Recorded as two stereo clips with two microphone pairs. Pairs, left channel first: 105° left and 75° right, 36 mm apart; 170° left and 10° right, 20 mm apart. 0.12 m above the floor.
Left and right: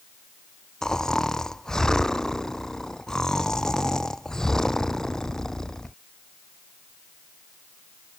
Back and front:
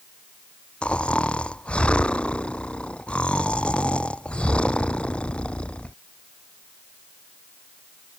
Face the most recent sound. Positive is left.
turn(degrees=180)